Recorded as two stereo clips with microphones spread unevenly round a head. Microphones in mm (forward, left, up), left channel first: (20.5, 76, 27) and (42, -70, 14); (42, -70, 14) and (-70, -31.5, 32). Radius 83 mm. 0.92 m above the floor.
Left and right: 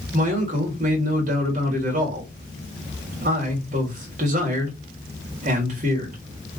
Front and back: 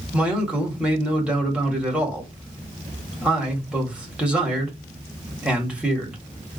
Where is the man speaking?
115° right, 1.8 m.